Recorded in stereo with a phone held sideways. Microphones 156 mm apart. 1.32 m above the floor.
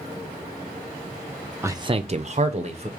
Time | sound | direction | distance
1.6 | a man speaking | 15° right (ahead or behind) | 0.5 m